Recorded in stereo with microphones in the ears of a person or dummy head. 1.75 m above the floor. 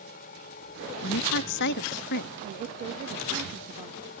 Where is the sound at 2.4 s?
40° right (ahead or behind).